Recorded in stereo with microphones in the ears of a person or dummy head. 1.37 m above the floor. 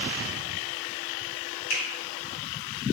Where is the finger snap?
75° left (ahead or behind), 1.4 m.